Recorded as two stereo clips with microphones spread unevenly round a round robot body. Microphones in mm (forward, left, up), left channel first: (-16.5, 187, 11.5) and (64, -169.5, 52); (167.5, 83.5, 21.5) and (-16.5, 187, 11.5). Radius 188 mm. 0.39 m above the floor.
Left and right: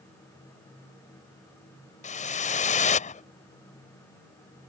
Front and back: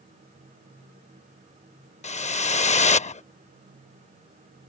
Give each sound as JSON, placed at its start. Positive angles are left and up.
{"t": 2.0, "sound": "a whoosh", "azimuth_deg": 35}